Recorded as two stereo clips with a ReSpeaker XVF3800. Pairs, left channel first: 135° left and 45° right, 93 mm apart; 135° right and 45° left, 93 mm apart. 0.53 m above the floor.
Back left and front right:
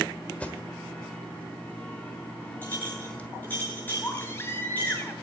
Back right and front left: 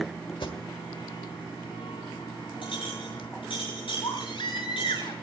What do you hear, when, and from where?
0.4 s an alarm: 150° right, 1.3 m
2.6 s a clink: 155° right, 7 m
4.0 s a baby crying: 160° right, 2.0 m